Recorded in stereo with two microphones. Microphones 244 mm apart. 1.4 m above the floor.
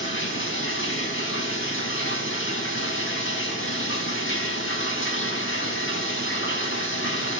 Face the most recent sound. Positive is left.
turn(degrees=55)  # may be behind; listen again after turning